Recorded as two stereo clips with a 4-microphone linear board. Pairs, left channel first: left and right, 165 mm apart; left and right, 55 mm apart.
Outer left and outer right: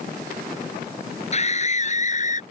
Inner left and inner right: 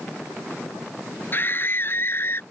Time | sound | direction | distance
1.3 | a scream | 40° left (ahead or behind) | ?